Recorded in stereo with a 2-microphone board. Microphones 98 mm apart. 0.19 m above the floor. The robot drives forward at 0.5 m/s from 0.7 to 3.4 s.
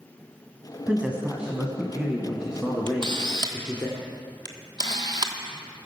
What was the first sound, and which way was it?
A man speaking, 15° right (ahead or behind).